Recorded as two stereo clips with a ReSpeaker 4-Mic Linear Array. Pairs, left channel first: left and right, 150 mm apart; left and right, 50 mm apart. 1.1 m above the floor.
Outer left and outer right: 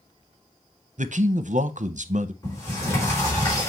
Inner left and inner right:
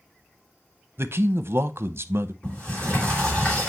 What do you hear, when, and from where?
1.0 s a man speaking: 55° right (ahead or behind), 0.7 m
2.4 s a sliding door: 20° left (ahead or behind), 4.5 m